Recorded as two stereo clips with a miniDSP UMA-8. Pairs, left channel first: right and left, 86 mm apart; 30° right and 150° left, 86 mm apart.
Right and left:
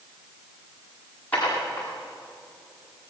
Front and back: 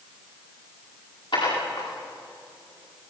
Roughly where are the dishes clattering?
Ahead.